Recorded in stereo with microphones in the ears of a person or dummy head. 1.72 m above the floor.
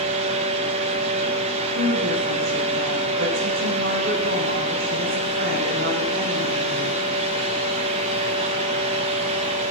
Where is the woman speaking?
65° right (ahead or behind), 10 m.